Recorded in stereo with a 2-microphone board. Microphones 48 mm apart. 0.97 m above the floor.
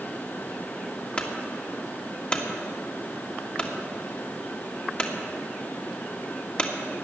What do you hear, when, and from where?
1.2 s a clunk: 25° left (ahead or behind), 1.8 m